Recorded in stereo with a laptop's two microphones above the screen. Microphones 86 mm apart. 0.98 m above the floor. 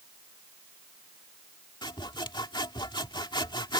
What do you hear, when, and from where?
1.8 s sawing: 60° left (ahead or behind)